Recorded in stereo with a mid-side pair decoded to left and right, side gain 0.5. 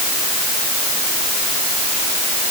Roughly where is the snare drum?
I don't hear a snare drum.